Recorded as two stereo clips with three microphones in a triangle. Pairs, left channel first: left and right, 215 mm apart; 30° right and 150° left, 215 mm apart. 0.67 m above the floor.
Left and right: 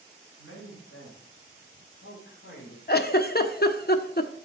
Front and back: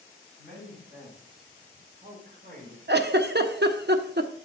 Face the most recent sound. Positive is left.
turn(degrees=125)